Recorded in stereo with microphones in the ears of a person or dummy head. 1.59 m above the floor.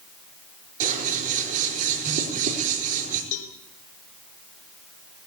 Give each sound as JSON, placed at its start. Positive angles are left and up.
{"t": 0.8, "sound": "scissors", "side_deg": -40, "distance_m": 4.0}
{"t": 3.3, "sound": "a cowbell", "side_deg": 70, "distance_m": 2.5}